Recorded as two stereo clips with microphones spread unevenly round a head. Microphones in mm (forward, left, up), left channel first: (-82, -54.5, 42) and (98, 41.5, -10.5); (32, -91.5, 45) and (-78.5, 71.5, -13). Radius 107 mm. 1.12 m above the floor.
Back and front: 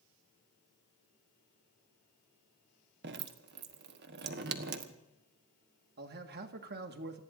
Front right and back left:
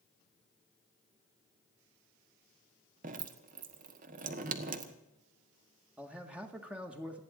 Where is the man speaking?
50° left, 1.7 m.